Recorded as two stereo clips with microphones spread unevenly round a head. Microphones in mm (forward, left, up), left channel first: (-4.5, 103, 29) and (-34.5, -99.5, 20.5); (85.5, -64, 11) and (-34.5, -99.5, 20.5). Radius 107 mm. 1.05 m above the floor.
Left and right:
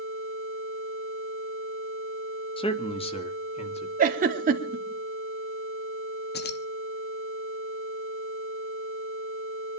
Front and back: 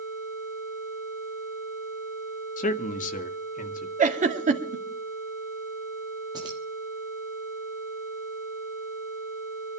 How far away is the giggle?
About 2.5 m.